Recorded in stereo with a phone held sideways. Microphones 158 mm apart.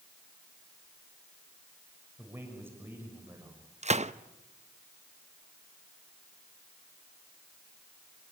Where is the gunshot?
45° right (ahead or behind), 0.6 m.